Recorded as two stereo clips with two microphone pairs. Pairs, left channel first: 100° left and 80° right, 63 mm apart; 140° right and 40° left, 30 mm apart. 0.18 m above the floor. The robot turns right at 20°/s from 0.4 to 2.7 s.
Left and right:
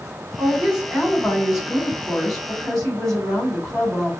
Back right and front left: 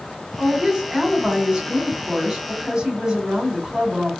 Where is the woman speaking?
25° right, 1.6 m; by 4.1 s 20° left, 1.6 m.